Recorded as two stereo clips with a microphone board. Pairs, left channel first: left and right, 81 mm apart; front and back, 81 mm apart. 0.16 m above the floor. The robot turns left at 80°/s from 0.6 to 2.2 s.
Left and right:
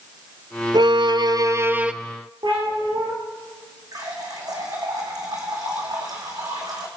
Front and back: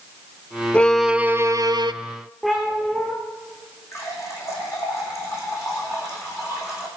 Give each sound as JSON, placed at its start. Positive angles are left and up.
{"t": 0.7, "sound": "a violin", "azimuth_deg": -75, "distance_m": 0.7}
{"t": 2.4, "sound": "a cat meowing", "azimuth_deg": -85, "distance_m": 6.0}
{"t": 3.9, "sound": "a running tap", "azimuth_deg": -55, "distance_m": 5.5}